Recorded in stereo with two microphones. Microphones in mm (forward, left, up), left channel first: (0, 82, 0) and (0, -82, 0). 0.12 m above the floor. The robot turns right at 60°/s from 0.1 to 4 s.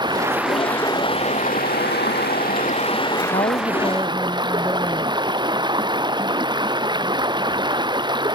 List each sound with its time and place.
0.0 s running water: 25° right; by 8.3 s 150° right
3.3 s a woman speaking: 130° left; by 5.2 s 175° left